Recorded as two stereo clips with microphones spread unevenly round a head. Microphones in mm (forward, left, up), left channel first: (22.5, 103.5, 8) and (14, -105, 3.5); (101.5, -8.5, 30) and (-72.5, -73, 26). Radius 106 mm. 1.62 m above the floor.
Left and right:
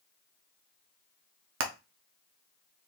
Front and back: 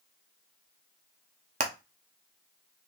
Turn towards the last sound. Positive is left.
turn(degrees=-110)